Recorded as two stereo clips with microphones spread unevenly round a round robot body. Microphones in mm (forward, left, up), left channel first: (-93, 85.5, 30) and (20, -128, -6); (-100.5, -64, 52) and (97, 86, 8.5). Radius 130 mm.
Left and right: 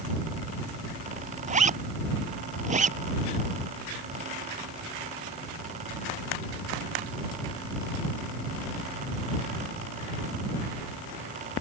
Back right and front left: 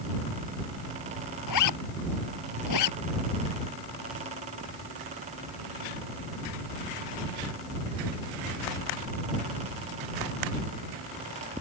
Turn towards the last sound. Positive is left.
turn(degrees=-125)